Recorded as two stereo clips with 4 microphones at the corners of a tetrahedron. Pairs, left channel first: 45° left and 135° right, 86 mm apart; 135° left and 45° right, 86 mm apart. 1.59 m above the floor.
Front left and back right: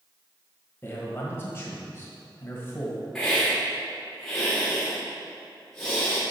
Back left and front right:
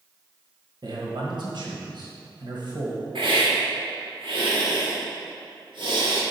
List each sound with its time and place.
0.8 s a man speaking: 15° right, 1.6 m
3.1 s a hiss: 35° right, 1.8 m